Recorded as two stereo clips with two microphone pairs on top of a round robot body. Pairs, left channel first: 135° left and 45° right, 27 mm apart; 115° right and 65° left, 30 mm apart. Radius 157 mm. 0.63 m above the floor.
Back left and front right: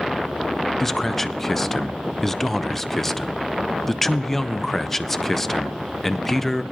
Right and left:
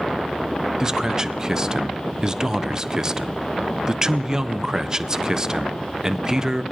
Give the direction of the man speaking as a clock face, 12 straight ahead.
8 o'clock.